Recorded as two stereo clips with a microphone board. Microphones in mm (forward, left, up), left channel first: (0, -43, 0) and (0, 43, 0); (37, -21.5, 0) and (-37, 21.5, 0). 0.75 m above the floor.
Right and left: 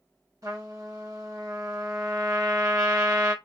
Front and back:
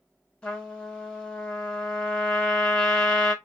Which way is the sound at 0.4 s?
45° left.